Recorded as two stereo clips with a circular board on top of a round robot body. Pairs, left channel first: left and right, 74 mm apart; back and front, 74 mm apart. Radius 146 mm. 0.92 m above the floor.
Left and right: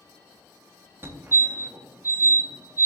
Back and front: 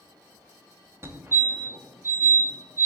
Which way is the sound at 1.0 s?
40° right.